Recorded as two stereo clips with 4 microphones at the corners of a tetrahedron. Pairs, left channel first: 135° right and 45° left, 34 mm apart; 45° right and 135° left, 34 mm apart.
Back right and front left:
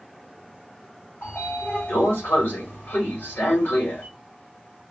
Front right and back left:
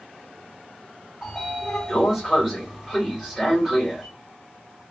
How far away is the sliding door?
About 1.6 m.